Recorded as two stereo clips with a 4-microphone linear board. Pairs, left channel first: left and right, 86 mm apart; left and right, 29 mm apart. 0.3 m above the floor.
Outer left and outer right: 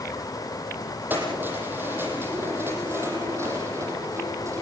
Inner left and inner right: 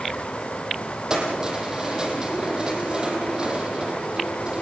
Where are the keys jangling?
20° right (ahead or behind), 8.5 m; by 4.6 s 35° right (ahead or behind), 8.5 m.